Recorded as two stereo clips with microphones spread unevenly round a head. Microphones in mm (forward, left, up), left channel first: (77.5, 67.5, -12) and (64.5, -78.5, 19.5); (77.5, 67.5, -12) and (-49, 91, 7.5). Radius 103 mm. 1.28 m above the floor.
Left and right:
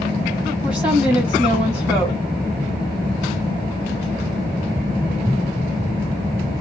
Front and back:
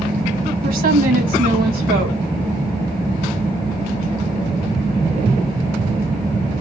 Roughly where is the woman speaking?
Behind.